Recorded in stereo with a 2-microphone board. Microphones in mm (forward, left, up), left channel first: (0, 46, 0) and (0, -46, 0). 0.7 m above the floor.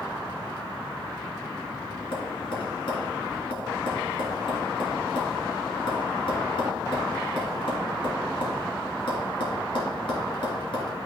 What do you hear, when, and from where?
2.1 s tapping: 65° left (ahead or behind), 2.5 m